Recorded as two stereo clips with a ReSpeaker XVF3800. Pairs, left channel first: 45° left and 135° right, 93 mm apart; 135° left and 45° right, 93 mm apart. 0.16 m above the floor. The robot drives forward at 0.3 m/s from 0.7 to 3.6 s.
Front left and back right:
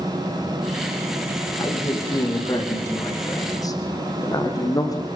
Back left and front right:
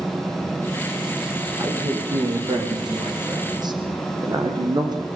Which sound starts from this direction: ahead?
A man speaking, at 1.6 s.